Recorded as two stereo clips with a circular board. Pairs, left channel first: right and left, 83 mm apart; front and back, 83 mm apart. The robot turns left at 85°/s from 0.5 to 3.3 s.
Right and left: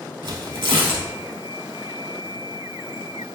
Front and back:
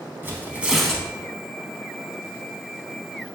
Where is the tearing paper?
115° left, 0.7 m; by 1.1 s 70° left, 0.7 m.